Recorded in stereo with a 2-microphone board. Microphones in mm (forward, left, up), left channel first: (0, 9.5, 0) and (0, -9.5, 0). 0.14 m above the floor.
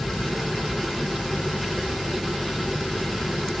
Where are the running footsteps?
I don't hear running footsteps.